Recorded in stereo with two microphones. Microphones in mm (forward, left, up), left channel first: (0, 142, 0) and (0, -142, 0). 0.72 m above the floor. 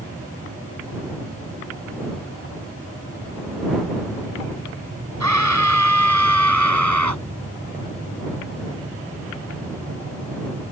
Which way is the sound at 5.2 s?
80° right.